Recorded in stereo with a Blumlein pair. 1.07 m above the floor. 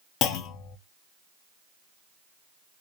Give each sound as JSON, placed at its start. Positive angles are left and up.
{"t": 0.2, "sound": "a clunk", "azimuth_deg": 35, "distance_m": 0.6}